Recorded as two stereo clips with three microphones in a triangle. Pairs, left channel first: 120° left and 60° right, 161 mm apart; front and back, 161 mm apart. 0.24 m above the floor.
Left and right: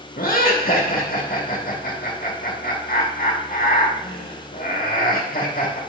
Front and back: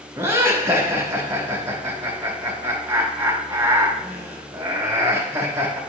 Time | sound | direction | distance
0.2 | laughter | 110° left | 3 m